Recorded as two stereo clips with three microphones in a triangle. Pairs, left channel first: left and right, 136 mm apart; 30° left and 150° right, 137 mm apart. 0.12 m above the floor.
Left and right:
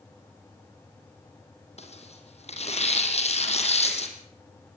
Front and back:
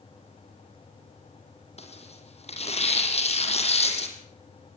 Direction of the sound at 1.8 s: 60° left.